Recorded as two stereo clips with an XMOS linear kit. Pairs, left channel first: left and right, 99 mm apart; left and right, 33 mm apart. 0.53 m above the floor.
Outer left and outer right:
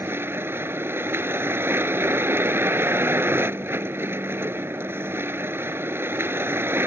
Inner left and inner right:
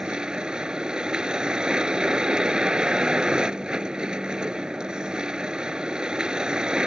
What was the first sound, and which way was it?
A vehicle, 20° right (ahead or behind).